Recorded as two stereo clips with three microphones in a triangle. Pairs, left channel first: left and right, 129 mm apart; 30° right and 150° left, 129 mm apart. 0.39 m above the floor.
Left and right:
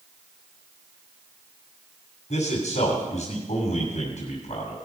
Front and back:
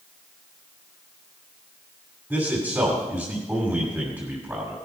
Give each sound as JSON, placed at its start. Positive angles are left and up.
{"t": 2.3, "sound": "a man speaking", "azimuth_deg": 80, "distance_m": 2.5}